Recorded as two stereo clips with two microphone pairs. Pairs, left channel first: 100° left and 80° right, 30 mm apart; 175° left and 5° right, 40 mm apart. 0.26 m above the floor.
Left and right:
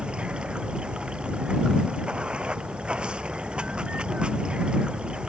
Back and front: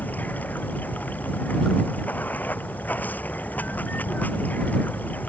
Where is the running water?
135° right.